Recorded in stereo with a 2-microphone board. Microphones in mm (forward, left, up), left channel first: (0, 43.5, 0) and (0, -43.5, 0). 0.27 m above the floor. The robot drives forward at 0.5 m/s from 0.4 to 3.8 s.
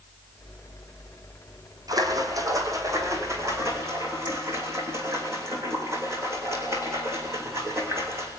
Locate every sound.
1.9 s a splash: 45° right (ahead or behind), 2.5 m; by 8.3 s 30° right (ahead or behind), 3 m